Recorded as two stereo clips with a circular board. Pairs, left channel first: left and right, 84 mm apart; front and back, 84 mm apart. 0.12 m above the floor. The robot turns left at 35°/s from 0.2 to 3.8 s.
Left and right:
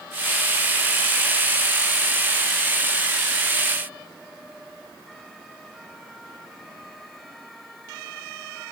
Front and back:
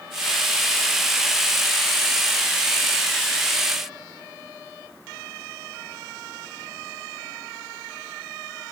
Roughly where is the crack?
No crack in this recording.